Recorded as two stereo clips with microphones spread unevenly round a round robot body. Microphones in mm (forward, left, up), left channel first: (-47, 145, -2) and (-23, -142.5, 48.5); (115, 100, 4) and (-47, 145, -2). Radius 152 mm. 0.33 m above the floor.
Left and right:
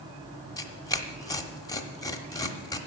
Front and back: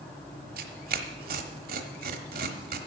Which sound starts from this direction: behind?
Tearing paper, at 0.6 s.